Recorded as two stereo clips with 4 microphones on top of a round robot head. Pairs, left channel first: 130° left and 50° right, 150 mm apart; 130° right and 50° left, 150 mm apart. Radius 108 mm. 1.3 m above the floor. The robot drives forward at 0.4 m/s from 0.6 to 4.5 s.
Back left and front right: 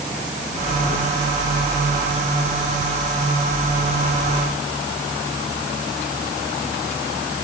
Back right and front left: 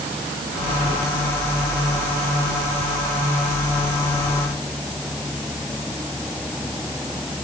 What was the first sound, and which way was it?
Only background noise.